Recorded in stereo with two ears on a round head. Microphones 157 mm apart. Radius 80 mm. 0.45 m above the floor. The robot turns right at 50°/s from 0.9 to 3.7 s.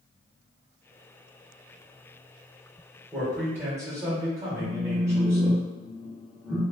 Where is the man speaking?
5° left (ahead or behind), 1.2 m; by 5.6 s 15° right (ahead or behind), 1.2 m.